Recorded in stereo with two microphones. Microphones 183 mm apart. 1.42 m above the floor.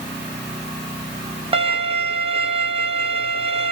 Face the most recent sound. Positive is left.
turn(degrees=-30)  # may be behind; listen again after turning